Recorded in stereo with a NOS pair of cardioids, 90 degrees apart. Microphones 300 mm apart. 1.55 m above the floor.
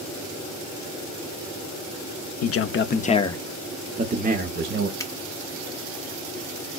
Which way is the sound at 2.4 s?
55° left.